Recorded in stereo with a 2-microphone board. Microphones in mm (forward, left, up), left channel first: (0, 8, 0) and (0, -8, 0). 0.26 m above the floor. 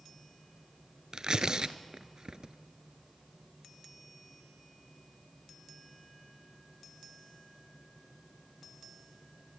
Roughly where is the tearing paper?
Right.